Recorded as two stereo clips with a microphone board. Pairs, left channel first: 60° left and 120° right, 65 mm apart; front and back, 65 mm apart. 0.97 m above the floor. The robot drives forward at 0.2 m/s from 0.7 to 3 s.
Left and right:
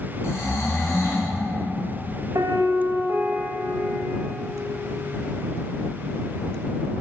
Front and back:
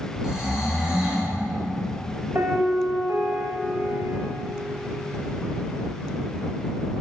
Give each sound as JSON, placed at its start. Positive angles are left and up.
{"t": 0.2, "sound": "snoring", "azimuth_deg": 100, "distance_m": 1.8}
{"t": 2.4, "sound": "a piano", "azimuth_deg": -140, "distance_m": 0.8}